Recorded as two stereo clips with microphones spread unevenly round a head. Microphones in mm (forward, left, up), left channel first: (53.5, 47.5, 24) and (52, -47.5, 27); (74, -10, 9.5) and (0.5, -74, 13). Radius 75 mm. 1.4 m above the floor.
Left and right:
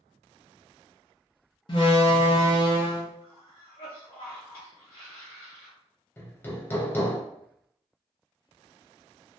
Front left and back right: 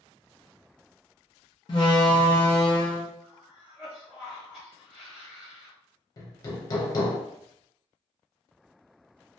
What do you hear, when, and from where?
1.7 s a door slam: 85° left, 0.5 m
3.2 s a cough: 135° left, 0.8 m
6.2 s hammering: 40° left, 0.5 m